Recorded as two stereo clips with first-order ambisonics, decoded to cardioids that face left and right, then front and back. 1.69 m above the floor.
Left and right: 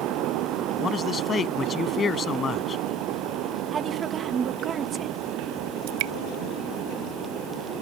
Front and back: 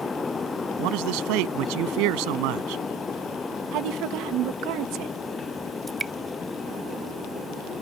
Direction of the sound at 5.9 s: 105° right.